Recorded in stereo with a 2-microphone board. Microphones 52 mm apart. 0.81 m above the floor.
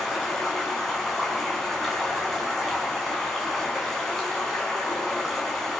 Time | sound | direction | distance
0.0 | running water | 5° left (ahead or behind) | 7.5 m